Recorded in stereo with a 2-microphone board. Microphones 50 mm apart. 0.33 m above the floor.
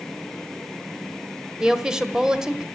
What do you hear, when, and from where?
1.6 s a woman speaking: 15° right (ahead or behind), 1.3 m